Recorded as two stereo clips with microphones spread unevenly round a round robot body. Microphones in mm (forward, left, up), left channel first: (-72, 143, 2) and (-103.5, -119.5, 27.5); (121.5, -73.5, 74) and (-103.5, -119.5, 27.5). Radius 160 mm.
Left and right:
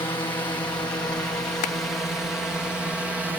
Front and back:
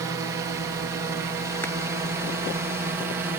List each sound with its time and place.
0.0 s a drone: 150° left; by 3.4 s 175° left
1.6 s crushing: 95° left